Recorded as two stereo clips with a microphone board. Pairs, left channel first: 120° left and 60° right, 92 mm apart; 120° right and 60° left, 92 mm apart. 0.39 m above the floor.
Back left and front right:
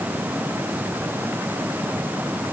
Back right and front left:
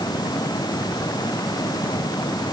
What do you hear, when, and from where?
Only background noise.